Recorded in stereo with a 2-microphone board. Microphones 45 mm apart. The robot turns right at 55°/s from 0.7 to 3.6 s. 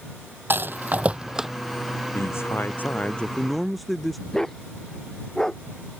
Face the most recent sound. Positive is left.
turn(degrees=10)  # may be behind; listen again after turning